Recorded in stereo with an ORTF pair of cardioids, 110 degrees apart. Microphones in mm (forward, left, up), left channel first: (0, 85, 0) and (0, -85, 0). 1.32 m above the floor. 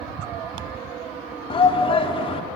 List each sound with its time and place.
1.5 s a shout: 30° left, 3 m